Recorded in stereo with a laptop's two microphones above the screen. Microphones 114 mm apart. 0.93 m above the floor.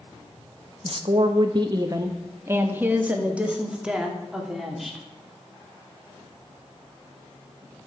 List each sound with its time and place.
0.8 s a woman speaking: 55° right (ahead or behind), 1.0 m; by 5.0 s centre (ahead or behind), 2.5 m